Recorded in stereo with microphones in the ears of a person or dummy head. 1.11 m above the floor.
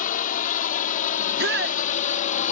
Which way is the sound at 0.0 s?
55° left (ahead or behind).